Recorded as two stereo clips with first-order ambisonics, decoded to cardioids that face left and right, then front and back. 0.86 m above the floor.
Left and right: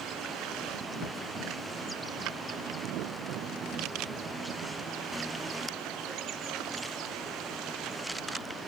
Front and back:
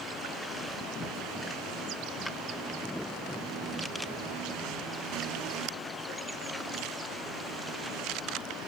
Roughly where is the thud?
Left.